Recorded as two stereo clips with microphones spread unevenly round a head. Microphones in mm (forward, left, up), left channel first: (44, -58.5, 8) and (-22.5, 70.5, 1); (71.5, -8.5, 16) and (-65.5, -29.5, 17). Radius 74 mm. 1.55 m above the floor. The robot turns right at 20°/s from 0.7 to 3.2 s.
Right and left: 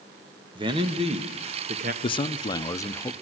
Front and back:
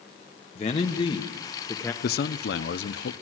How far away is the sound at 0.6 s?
About 1.3 m.